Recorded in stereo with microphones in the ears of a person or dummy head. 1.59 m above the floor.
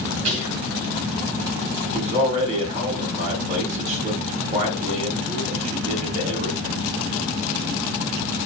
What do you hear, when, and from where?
0.2 s whispering: 35° right (ahead or behind), 2 m
1.9 s a man speaking: 35° right (ahead or behind), 1.7 m